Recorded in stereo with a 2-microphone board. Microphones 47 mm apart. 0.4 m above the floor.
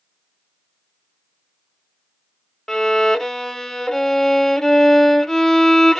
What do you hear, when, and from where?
2.7 s a violin: 10° left (ahead or behind), 0.7 m